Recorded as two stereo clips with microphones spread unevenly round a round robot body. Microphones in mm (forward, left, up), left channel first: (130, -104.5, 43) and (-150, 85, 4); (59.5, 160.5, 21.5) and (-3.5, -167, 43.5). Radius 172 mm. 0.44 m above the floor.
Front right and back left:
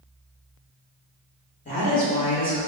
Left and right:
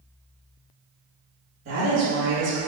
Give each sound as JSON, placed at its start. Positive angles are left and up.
{"t": 1.6, "sound": "a woman speaking", "azimuth_deg": -90, "distance_m": 1.3}